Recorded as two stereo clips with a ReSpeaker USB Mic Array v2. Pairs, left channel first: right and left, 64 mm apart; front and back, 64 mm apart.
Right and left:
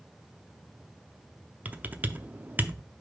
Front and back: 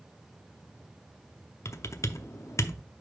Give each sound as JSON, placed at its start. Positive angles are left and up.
{"t": 1.6, "sound": "typing on a keyboard", "azimuth_deg": 30, "distance_m": 0.6}